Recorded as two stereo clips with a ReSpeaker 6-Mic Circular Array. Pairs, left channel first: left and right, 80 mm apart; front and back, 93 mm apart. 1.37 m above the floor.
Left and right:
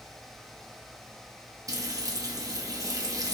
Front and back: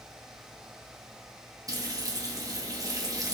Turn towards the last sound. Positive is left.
turn(degrees=-130)